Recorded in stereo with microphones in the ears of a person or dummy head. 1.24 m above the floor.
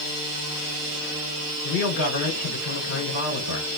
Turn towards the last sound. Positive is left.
turn(degrees=55)  # may be behind; listen again after turning